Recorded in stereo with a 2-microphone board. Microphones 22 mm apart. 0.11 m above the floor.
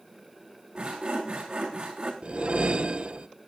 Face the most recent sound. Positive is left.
turn(degrees=-60)  # may be behind; listen again after turning